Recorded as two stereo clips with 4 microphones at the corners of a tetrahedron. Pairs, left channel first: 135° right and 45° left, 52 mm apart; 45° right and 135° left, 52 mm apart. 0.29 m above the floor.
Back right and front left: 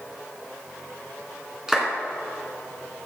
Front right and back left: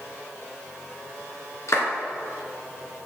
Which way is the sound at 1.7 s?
35° right.